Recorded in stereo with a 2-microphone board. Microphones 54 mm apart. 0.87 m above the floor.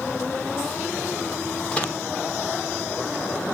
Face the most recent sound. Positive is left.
turn(degrees=20)  # may be behind; listen again after turning